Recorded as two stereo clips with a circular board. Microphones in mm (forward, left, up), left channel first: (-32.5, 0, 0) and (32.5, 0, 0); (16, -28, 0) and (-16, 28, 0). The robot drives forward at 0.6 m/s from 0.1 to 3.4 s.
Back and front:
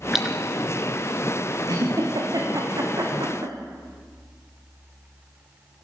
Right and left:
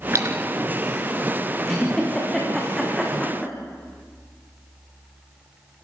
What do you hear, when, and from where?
0.1 s a splash: 85° left, 3 m
1.7 s a giggle: 20° left, 6.5 m; by 3.5 s 25° left, 5.5 m